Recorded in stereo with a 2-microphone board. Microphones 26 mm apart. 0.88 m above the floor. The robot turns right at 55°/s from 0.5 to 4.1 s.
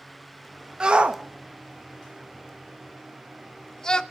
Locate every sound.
0.8 s a shout: 35° right (ahead or behind), 0.9 m; by 4.0 s 30° left (ahead or behind), 0.9 m